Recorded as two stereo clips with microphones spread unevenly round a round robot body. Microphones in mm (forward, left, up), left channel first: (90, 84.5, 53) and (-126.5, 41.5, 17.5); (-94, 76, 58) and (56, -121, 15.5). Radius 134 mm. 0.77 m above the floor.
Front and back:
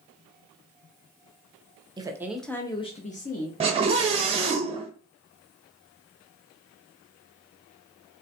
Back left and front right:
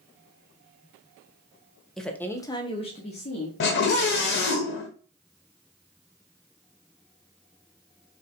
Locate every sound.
2.0 s a woman speaking: 130° right, 0.8 m; by 3.5 s 60° left, 1.0 m
3.6 s a scream: 155° left, 0.6 m